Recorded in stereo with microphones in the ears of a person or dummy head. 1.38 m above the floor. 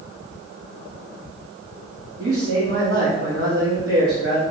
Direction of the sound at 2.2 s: 70° right (ahead or behind).